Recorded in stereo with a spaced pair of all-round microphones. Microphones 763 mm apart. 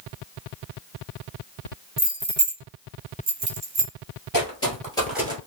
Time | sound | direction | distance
2.0 | keys jangling | 5° left (ahead or behind) | 0.5 m
4.3 | footsteps | 25° left (ahead or behind) | 1.4 m